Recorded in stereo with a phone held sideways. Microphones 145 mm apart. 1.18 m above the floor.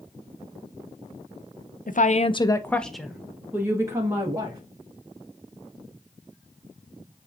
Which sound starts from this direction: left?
A woman speaking, at 1.9 s.